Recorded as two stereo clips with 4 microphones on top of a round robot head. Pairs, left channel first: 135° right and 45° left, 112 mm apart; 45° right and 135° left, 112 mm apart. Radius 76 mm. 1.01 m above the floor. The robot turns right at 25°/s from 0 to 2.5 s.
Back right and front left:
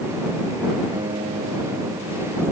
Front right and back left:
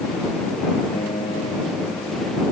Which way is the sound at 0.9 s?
Straight ahead.